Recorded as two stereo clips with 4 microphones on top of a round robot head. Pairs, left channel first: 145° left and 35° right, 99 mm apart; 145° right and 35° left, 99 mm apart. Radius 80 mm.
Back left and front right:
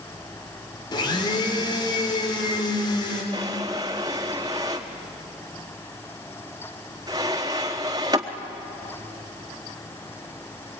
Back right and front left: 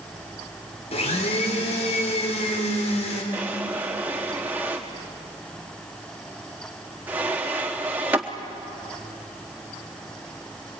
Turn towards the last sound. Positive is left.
turn(degrees=-25)